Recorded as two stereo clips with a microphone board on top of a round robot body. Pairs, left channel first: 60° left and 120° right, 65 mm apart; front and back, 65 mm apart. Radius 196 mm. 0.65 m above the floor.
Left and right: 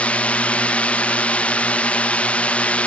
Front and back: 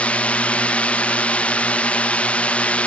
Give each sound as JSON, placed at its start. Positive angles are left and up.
{"t": 0.0, "sound": "a drone", "azimuth_deg": 30}